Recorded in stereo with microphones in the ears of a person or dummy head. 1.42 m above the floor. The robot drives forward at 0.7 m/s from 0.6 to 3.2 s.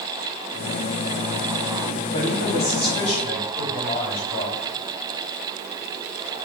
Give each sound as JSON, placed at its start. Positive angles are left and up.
{"t": 2.1, "sound": "a man speaking", "side_deg": 35, "distance_m": 5.0}